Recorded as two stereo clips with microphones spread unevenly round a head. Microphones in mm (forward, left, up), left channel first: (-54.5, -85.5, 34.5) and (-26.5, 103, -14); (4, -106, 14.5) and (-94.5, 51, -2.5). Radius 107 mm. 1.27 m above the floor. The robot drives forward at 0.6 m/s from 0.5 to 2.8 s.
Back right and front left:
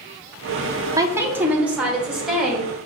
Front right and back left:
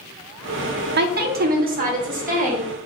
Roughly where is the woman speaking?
Behind left.